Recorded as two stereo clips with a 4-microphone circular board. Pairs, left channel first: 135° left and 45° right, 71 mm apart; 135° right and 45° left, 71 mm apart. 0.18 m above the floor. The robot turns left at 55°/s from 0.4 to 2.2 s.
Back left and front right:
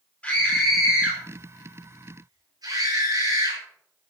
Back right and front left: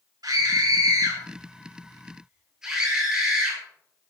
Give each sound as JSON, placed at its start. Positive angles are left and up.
{"t": 0.2, "sound": "a scream", "azimuth_deg": 65, "distance_m": 4.5}